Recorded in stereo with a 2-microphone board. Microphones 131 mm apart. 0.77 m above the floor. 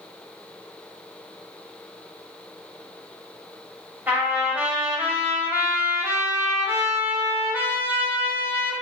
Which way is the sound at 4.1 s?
15° right (ahead or behind).